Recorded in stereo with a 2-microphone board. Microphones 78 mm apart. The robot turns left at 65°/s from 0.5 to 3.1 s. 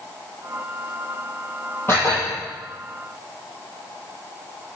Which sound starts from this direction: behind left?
Dishes clattering, at 1.9 s.